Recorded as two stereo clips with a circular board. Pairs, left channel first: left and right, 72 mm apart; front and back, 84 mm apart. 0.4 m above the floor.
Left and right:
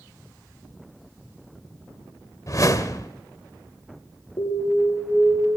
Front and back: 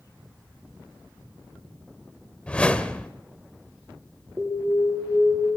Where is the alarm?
110° left, 10 m.